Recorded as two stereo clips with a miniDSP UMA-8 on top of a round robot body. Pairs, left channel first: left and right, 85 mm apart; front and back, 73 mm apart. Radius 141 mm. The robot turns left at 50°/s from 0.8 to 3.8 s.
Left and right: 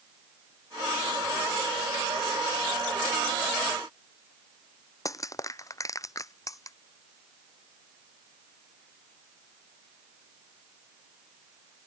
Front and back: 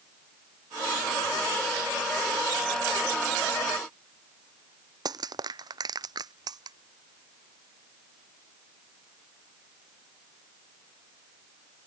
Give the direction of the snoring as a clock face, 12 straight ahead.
I don't hear snoring.